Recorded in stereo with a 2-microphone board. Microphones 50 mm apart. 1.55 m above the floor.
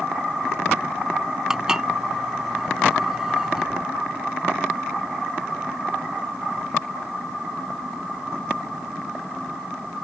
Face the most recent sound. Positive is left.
turn(degrees=-15)  # may be behind; listen again after turning